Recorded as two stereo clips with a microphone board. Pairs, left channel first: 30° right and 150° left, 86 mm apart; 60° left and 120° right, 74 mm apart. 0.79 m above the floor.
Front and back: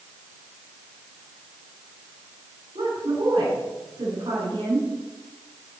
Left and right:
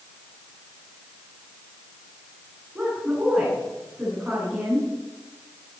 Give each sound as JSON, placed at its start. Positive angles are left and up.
{"t": 2.8, "sound": "a woman speaking", "azimuth_deg": 170, "distance_m": 9.5}